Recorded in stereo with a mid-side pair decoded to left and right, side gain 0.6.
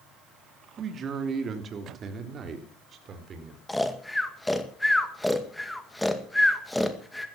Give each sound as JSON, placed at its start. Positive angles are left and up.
{"t": 0.8, "sound": "a man speaking", "azimuth_deg": -40, "distance_m": 2.5}
{"t": 3.7, "sound": "snoring", "azimuth_deg": 5, "distance_m": 2.0}